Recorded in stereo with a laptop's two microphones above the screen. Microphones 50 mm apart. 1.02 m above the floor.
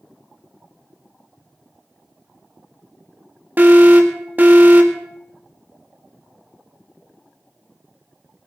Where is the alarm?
35° right (ahead or behind), 2.0 m.